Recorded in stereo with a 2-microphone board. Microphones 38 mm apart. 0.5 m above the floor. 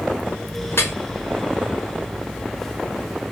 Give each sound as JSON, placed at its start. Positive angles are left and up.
{"t": 0.7, "sound": "dripping", "side_deg": 75, "distance_m": 0.6}